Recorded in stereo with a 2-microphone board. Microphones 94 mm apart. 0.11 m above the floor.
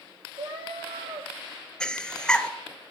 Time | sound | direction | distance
0.4 | a cat meowing | 70° right (ahead or behind) | 1.3 m
1.8 | breathing | 10° left (ahead or behind) | 0.6 m